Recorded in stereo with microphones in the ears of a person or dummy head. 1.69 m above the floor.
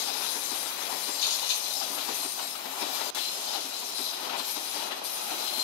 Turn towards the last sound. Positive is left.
turn(degrees=65)  # may be behind; listen again after turning